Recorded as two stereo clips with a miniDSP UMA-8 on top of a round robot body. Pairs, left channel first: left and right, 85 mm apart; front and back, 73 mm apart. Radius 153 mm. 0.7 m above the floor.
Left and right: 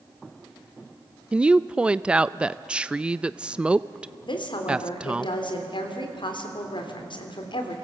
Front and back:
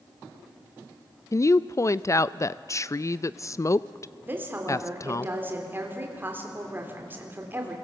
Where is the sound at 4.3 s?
115° left, 3.5 m.